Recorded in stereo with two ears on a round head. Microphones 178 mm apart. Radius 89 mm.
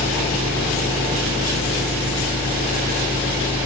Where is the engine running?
10° right (ahead or behind), 4 m.